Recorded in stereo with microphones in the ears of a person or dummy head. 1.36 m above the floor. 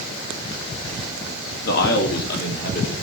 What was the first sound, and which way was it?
A man speaking, 60° left (ahead or behind).